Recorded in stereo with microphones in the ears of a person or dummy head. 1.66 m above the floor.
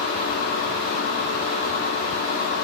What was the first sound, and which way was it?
A machine running, 50° left (ahead or behind).